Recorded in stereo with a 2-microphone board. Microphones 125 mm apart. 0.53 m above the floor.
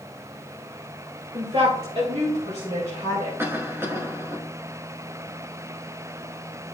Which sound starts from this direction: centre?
A cough, at 3.4 s.